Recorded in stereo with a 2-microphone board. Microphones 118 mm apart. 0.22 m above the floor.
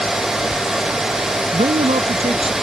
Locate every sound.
1.5 s a man speaking: 65° right (ahead or behind); by 2.5 s 55° right (ahead or behind)